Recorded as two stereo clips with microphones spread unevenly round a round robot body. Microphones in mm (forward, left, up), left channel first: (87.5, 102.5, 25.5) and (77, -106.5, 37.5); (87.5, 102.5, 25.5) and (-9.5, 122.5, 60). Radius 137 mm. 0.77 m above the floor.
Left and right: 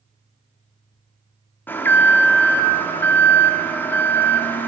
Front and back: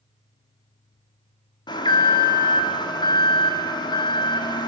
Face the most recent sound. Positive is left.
turn(degrees=10)